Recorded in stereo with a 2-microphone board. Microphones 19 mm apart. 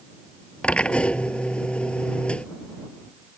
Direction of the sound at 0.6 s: 85° left.